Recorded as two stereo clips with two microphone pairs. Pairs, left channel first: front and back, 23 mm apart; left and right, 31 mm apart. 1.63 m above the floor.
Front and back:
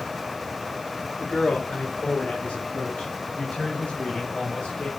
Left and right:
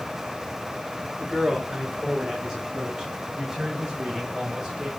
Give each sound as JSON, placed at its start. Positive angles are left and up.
{"t": 1.2, "sound": "a man speaking", "azimuth_deg": -25, "distance_m": 3.5}